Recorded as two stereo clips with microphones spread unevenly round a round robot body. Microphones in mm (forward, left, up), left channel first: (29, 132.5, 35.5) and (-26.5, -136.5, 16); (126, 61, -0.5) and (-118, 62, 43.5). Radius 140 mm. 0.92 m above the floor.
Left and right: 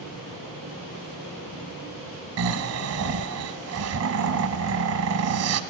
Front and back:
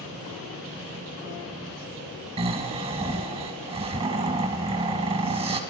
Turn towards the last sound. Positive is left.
turn(degrees=-125)